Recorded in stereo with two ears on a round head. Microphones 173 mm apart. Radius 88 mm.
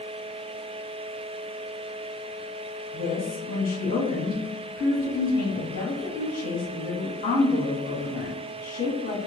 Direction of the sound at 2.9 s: 50° left (ahead or behind).